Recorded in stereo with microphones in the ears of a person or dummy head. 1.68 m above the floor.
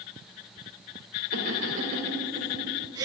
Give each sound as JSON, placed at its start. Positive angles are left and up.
{"t": 1.3, "sound": "laughter", "side_deg": -50, "distance_m": 4.5}